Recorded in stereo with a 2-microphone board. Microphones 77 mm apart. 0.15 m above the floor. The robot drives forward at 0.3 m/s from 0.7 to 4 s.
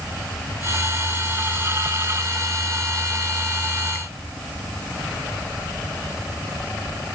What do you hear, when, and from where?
Only background noise.